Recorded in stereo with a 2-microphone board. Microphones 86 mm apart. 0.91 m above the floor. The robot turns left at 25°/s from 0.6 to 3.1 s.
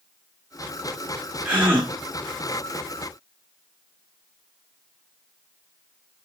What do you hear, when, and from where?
1.4 s a gasp: 20° right (ahead or behind), 1.5 m; by 1.9 s 30° right (ahead or behind), 1.5 m